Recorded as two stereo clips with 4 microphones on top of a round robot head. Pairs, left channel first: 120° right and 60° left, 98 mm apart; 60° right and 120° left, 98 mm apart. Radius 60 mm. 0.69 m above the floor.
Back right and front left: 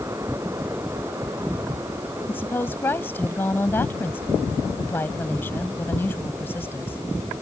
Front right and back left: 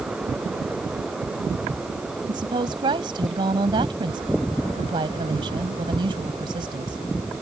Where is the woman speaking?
170° left.